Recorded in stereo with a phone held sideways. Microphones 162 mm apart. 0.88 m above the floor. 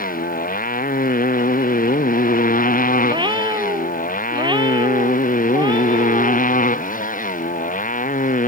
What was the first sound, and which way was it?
A motorcycle, 70° left (ahead or behind).